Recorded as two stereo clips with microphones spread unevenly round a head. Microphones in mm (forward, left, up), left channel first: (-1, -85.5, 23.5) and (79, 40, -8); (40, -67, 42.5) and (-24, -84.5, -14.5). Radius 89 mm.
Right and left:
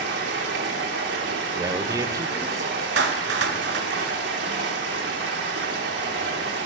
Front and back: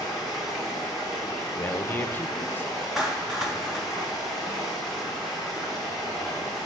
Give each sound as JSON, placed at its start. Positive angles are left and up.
{"t": 0.0, "sound": "running water", "azimuth_deg": 80, "distance_m": 1.1}
{"t": 1.6, "sound": "a man speaking", "azimuth_deg": -15, "distance_m": 0.7}
{"t": 3.0, "sound": "a clap", "azimuth_deg": 85, "distance_m": 0.7}